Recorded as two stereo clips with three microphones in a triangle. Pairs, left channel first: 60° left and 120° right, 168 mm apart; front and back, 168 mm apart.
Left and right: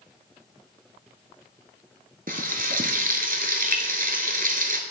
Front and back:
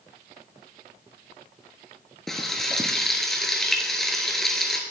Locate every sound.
2.3 s frying: 90° right, 1.0 m